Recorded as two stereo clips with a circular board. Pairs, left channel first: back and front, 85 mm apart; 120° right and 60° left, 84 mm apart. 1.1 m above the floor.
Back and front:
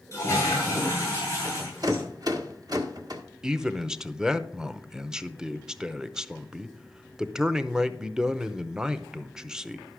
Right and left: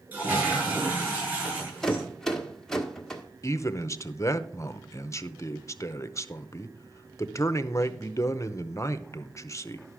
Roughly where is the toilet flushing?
Behind left.